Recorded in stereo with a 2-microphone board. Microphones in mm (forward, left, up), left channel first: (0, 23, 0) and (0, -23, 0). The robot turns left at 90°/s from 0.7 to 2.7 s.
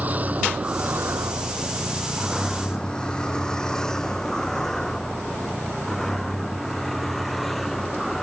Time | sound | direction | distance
0.0 | a vehicle | 35° right (ahead or behind) | ?